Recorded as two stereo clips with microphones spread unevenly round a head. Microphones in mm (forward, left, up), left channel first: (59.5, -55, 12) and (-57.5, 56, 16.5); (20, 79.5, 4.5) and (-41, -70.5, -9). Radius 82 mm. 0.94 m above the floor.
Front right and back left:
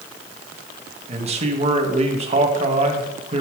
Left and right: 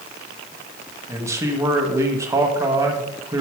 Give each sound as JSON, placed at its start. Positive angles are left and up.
{"t": 1.1, "sound": "a man speaking", "azimuth_deg": 180, "distance_m": 1.3}